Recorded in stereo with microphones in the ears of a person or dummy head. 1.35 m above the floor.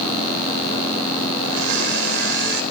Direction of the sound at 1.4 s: 60° right (ahead or behind).